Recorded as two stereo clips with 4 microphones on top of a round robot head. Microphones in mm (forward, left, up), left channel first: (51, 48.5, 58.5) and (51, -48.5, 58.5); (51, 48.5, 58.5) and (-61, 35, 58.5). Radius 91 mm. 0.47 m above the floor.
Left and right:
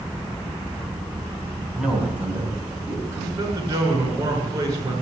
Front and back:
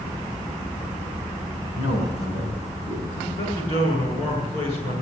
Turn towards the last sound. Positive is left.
turn(degrees=-35)